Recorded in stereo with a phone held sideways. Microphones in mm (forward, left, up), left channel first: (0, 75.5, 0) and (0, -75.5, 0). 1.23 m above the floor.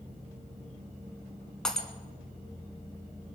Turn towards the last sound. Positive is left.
turn(degrees=5)  # may be behind; listen again after turning